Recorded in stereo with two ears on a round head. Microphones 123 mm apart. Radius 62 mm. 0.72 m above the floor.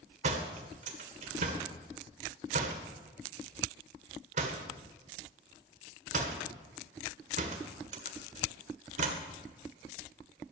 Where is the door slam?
50° right (ahead or behind), 1.6 m.